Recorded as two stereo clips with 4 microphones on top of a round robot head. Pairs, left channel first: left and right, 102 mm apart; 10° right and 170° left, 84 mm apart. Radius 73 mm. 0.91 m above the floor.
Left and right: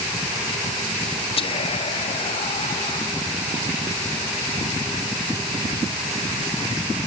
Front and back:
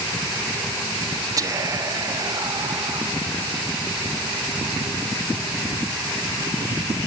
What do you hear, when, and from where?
1.4 s whispering: 120° left, 1.6 m